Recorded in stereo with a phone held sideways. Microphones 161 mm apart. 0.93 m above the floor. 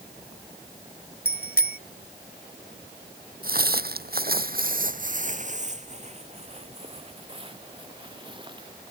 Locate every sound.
1.2 s a bicycle bell: 65° left (ahead or behind)
3.4 s footsteps: 60° right (ahead or behind); by 8.7 s 30° right (ahead or behind)